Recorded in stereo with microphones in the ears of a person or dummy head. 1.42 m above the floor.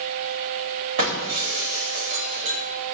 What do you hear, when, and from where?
1.0 s breaking glass: 45° right (ahead or behind), 3.5 m